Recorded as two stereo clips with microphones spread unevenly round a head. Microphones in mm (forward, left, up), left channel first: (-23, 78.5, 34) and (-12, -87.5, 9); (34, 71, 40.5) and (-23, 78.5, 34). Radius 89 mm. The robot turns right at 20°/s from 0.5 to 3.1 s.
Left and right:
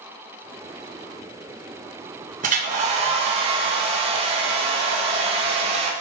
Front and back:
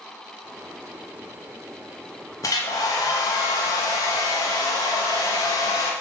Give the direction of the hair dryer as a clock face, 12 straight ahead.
2 o'clock.